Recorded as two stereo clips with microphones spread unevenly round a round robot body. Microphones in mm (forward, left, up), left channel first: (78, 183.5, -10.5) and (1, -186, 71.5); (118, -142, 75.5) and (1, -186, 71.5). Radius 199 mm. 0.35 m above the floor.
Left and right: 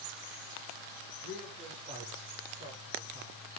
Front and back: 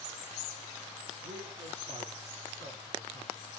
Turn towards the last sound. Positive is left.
turn(degrees=180)